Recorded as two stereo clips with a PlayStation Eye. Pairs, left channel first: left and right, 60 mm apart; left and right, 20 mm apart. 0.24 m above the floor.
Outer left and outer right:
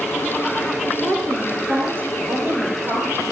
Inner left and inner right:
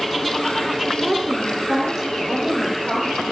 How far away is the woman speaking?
About 4 m.